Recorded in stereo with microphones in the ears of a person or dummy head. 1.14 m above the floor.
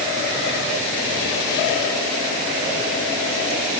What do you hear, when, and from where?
Only background noise.